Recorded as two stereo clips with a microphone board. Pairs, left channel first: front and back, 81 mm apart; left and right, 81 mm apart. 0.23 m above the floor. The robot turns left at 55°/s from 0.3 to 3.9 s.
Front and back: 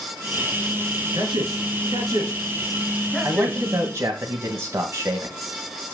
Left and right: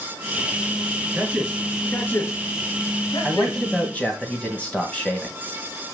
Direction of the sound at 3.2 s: 170° right.